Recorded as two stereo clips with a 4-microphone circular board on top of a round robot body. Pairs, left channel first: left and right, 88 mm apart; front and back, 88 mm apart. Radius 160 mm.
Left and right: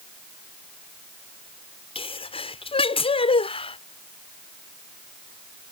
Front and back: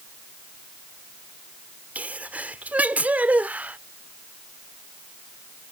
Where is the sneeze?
105° left.